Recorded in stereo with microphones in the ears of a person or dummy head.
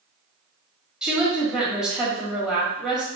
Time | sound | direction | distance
1.0 | a woman speaking | 5° right (ahead or behind) | 1.6 m